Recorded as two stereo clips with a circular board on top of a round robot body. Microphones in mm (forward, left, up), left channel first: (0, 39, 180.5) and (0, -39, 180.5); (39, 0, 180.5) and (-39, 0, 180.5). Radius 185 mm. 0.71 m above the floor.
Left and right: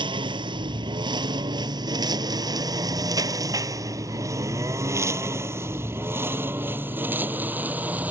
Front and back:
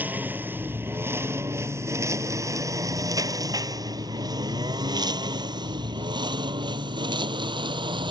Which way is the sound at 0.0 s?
110° right.